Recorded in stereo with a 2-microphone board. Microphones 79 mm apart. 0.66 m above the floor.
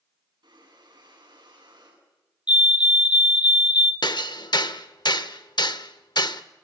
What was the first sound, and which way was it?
Breathing, 65° right (ahead or behind).